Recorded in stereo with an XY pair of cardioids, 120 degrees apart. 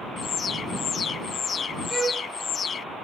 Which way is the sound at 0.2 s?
40° left.